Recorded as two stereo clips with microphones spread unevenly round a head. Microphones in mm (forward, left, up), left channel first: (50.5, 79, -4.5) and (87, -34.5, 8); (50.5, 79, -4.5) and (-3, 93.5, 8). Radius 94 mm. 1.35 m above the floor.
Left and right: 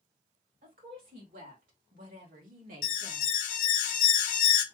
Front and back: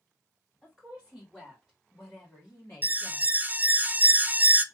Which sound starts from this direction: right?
A woman speaking, at 0.6 s.